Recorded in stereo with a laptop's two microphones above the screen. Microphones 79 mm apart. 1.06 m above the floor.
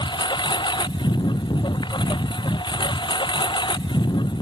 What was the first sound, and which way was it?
A lawn mower, 80° left.